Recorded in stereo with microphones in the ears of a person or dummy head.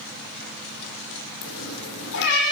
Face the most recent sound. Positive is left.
turn(degrees=65)  # may be behind; listen again after turning